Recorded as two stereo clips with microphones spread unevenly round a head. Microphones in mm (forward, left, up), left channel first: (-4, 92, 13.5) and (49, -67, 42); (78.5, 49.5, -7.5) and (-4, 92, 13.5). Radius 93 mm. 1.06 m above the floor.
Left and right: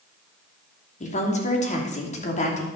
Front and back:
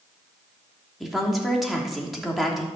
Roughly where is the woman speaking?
Ahead left.